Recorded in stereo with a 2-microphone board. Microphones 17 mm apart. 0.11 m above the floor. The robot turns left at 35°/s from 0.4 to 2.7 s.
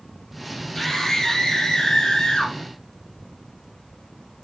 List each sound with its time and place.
0.8 s a scream: 170° left, 3.5 m; by 2.5 s 105° left, 3.5 m